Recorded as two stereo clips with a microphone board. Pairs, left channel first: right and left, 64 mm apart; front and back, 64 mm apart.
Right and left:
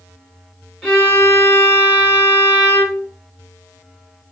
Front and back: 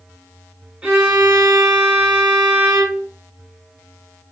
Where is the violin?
150° right, 1.3 m.